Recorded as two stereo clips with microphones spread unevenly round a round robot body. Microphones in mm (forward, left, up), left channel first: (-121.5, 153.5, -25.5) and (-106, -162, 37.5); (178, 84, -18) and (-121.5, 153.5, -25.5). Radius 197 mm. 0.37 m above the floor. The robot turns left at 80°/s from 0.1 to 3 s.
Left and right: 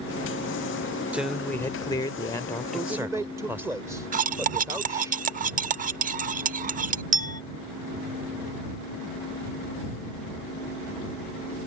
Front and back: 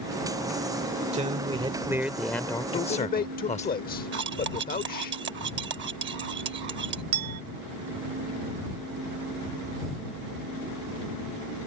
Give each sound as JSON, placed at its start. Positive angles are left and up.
{"t": 1.1, "sound": "a man speaking", "azimuth_deg": 165}
{"t": 2.7, "sound": "a man speaking", "azimuth_deg": 30}
{"t": 4.1, "sound": "cutlery clinking", "azimuth_deg": -155}
{"t": 7.1, "sound": "a clink", "azimuth_deg": -160}